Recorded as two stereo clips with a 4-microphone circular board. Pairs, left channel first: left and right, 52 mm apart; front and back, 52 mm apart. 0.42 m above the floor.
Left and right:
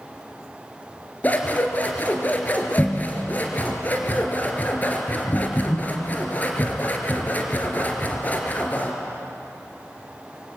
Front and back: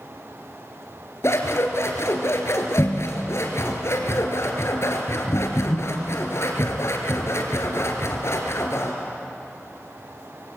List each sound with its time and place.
1.2 s scissors: 30° left, 3 m